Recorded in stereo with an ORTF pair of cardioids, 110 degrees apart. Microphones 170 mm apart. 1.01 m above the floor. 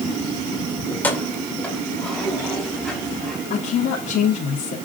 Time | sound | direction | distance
0.9 | keys jangling | 15° left | 2.5 m
3.5 | a woman speaking | 55° left | 3 m